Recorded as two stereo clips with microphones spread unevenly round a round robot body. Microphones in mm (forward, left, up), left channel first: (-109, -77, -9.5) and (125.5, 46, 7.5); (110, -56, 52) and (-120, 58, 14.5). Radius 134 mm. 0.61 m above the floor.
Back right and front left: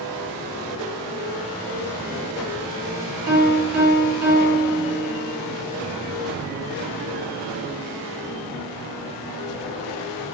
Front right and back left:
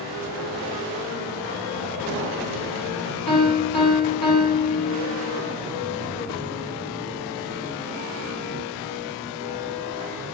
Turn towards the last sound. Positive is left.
turn(degrees=35)